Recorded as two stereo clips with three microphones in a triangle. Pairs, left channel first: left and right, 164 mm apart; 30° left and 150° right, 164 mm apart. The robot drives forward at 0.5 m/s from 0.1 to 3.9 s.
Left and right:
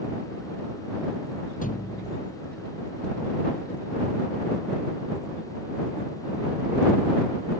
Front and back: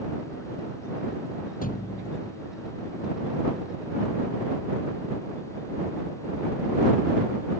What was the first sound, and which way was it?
A thud, 60° left.